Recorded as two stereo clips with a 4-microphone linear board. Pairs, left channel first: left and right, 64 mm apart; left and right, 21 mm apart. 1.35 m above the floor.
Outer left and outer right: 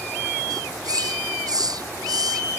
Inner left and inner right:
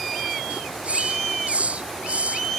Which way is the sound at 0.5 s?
85° right.